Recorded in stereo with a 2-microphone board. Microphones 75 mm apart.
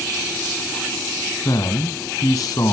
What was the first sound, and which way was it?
A man speaking, 55° left (ahead or behind).